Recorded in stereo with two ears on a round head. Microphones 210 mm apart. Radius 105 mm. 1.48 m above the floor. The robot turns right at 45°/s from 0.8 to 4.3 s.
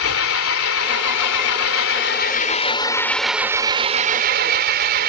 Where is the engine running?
70° left; by 5.1 s 135° right.